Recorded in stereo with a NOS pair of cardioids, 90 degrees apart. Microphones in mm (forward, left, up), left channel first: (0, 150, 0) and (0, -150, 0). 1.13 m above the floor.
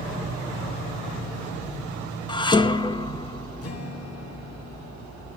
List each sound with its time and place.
2.3 s dishes clattering: 15° left, 0.8 m
3.6 s a guitar: 50° left, 2 m